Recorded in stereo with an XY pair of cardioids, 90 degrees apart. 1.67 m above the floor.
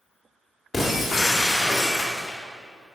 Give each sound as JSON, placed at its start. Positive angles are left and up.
{"t": 0.7, "sound": "breaking glass", "azimuth_deg": 20, "distance_m": 2.5}